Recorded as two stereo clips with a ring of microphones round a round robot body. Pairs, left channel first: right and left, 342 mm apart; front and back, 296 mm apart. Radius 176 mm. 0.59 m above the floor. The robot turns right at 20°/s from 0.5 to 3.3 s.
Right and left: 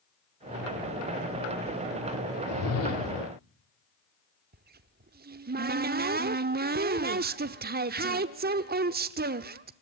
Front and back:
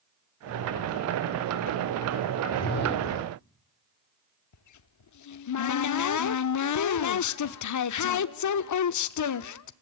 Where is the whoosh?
60° right, 1.9 m; by 3.3 s 40° right, 1.9 m.